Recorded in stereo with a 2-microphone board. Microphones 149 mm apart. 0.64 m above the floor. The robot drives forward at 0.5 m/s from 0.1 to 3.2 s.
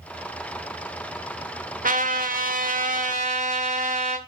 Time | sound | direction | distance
1.8 | a trumpet | 65° right (ahead or behind) | 1.0 m